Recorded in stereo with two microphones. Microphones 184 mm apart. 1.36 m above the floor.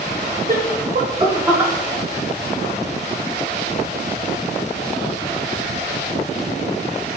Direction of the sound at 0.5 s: 50° right (ahead or behind).